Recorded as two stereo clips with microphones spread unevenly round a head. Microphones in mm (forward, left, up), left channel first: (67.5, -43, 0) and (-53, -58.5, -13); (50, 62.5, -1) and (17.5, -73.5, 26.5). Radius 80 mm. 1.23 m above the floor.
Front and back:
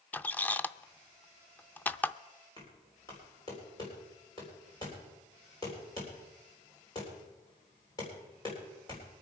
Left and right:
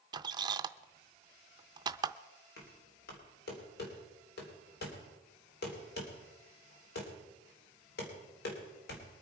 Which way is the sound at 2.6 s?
75° left.